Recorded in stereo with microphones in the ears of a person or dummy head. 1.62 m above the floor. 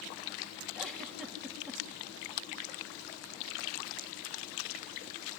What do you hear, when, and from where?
0.8 s a giggle: 5° left (ahead or behind), 3.5 m